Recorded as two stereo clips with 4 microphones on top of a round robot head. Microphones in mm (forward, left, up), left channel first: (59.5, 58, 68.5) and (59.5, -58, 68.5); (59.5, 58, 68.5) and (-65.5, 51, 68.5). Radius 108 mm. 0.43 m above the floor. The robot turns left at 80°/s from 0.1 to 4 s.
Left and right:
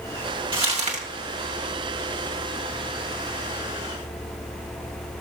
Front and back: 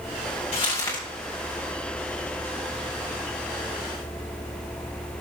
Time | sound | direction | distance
0.5 | crumpling | 45° right | 2.5 m